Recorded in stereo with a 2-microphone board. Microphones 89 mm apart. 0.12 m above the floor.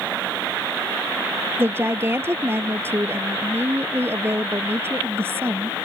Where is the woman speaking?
25° right (ahead or behind).